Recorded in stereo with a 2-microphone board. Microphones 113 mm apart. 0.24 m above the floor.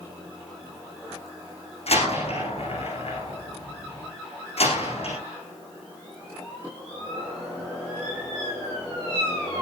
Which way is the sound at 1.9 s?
65° left (ahead or behind).